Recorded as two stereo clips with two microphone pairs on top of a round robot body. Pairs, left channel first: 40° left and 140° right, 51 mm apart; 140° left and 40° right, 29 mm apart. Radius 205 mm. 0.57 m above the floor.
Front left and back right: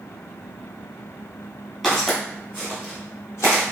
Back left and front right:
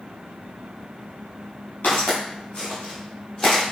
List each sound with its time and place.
1.8 s footsteps: 125° left, 0.9 m; by 3.6 s 65° left, 1.5 m